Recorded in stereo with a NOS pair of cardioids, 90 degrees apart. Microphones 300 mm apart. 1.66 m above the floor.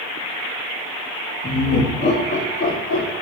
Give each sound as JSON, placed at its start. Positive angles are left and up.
{"t": 1.4, "sound": "laughter", "azimuth_deg": 30, "distance_m": 2.0}